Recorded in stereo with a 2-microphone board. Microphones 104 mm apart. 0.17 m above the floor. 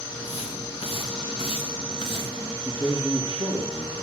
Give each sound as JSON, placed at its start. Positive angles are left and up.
{"t": 0.1, "sound": "footsteps", "side_deg": 70, "distance_m": 3.5}
{"t": 2.6, "sound": "a man speaking", "side_deg": 55, "distance_m": 4.5}